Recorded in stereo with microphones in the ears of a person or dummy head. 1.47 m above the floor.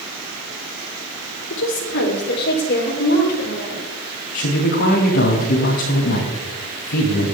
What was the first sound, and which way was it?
A woman speaking, 70° left (ahead or behind).